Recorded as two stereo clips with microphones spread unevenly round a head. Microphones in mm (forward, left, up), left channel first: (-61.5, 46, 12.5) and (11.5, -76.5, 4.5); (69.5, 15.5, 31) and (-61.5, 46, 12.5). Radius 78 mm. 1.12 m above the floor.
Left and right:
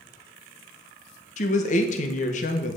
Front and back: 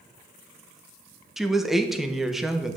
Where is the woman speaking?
85° left, 1.0 m.